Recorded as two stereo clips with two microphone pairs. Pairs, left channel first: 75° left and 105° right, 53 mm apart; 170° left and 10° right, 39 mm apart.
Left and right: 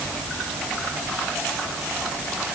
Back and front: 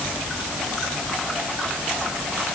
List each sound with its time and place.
Only background noise.